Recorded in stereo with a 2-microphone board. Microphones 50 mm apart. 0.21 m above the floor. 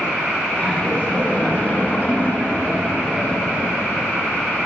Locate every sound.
0.6 s laughter: 25° left (ahead or behind), 1.7 m; by 3.8 s 35° left (ahead or behind), 2 m